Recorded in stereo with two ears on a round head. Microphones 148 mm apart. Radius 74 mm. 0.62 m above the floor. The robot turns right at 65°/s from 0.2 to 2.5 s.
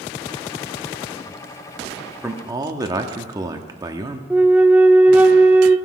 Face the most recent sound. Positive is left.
turn(degrees=-10)  # may be behind; listen again after turning